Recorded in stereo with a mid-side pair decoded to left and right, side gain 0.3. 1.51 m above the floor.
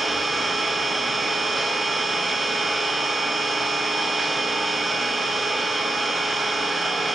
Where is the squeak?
No squeak in this recording.